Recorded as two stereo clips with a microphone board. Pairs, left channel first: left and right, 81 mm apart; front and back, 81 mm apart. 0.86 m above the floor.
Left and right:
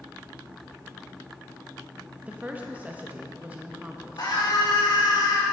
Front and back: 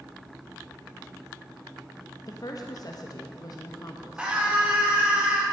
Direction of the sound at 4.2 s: 105° left.